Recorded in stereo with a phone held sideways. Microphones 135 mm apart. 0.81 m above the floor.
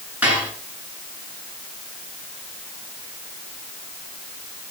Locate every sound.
0.2 s dishes clattering: 10° right (ahead or behind), 7 m